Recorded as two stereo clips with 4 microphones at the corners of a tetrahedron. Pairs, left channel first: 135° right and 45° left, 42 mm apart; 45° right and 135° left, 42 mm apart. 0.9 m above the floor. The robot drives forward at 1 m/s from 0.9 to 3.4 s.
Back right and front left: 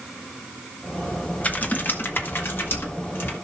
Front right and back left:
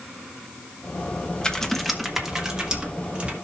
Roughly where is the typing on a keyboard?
Right.